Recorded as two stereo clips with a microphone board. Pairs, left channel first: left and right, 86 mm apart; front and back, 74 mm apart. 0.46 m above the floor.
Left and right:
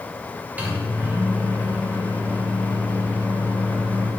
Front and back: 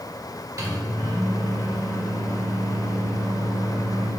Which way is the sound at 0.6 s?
160° right.